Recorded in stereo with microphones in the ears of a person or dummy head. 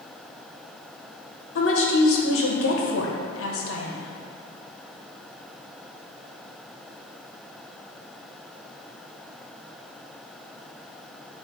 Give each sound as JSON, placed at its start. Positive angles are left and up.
{"t": 1.6, "sound": "a woman speaking", "side_deg": 70, "distance_m": 1.6}